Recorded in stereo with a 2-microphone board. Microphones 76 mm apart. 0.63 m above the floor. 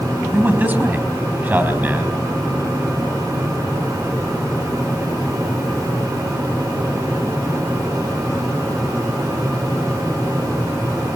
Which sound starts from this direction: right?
A man speaking, at 0.3 s.